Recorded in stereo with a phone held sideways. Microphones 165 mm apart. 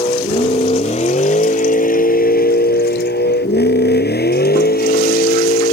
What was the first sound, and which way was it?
A vehicle, 35° left (ahead or behind).